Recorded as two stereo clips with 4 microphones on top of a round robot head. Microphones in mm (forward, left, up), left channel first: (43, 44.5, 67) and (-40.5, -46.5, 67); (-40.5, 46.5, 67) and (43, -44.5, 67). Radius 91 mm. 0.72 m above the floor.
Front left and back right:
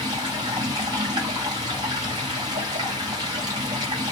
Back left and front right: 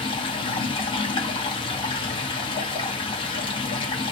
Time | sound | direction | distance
0.0 | running water | 175° left | 1.1 m